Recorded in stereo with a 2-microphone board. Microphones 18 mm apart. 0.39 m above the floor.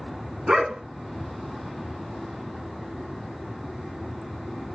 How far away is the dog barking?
About 1.7 m.